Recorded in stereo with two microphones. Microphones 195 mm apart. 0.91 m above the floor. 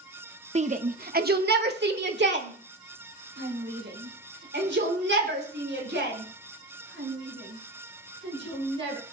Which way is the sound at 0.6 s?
35° right (ahead or behind).